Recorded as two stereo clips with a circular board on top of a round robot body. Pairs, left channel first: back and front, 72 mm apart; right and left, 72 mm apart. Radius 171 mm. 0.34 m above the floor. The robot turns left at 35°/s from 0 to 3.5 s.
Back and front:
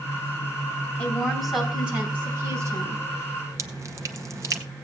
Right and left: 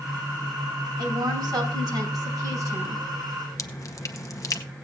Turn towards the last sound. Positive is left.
turn(degrees=-45)